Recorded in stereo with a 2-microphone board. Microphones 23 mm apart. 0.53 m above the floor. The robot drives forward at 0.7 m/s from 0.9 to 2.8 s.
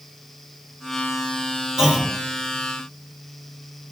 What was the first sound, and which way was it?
A clunk, 40° right (ahead or behind).